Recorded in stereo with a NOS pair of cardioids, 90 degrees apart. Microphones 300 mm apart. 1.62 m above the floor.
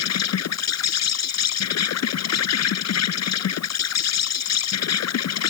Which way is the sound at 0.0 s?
60° left.